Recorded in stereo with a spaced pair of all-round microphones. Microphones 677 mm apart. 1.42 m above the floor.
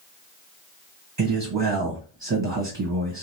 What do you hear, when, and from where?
1.2 s a man speaking: 30° right (ahead or behind), 1.3 m